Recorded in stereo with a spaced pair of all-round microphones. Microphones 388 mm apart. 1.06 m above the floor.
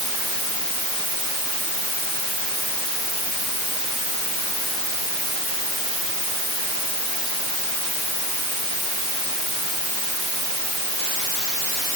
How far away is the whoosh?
No whoosh in this recording.